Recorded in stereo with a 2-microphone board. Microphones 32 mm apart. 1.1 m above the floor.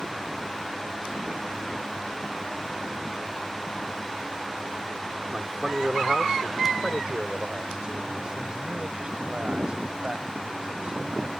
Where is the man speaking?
20° right (ahead or behind); by 11.3 s 35° right (ahead or behind).